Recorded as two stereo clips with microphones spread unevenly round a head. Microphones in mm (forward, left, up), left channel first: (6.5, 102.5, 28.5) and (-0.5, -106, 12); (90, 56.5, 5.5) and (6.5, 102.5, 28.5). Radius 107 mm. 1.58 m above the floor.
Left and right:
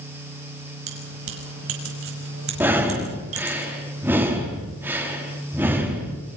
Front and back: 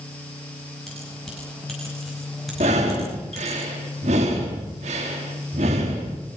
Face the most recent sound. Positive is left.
turn(degrees=-175)